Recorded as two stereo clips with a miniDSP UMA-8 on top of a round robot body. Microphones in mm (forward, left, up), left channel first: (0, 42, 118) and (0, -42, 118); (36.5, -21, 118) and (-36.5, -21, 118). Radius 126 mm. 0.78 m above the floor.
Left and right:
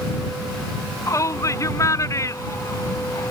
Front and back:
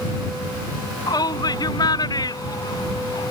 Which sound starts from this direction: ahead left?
A shout, at 1.1 s.